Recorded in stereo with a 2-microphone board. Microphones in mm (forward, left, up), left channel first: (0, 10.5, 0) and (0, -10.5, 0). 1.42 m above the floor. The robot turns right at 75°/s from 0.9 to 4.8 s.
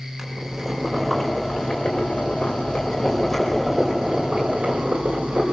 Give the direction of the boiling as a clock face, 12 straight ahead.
12 o'clock.